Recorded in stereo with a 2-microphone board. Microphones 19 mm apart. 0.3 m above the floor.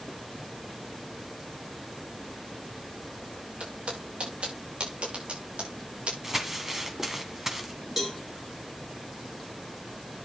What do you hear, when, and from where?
3.6 s footsteps: 90° right, 5.5 m; by 6.1 s 85° right, 7 m
6.2 s crumpling: 15° right (ahead or behind), 1.7 m
8.0 s a cowbell: 20° right (ahead or behind), 3 m